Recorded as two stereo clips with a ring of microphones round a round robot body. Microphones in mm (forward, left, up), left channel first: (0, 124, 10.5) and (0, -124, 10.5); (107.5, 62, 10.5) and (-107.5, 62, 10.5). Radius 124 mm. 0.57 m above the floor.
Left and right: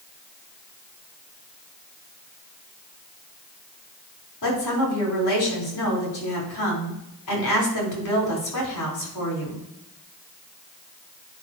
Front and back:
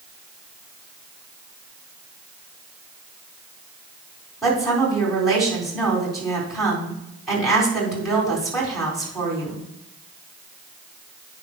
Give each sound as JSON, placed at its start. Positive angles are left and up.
{"t": 4.4, "sound": "a woman speaking", "azimuth_deg": 90, "distance_m": 4.0}